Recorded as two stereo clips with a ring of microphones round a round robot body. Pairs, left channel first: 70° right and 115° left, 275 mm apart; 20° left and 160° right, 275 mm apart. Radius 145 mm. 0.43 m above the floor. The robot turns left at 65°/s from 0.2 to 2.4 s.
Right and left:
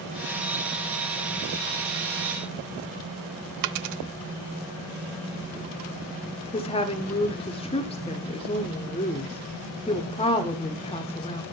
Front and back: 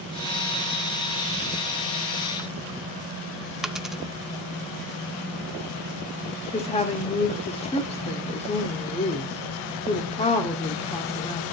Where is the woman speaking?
20° right, 1.3 m.